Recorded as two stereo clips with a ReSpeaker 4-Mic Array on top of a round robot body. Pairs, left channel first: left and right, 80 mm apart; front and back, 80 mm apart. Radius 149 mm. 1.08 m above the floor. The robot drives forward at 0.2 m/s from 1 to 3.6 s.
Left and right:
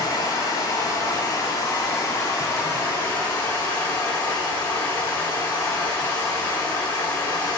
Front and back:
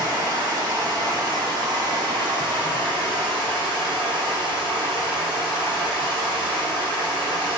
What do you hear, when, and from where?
0.0 s running water: 140° left, 0.8 m; by 7.6 s 155° left, 1.2 m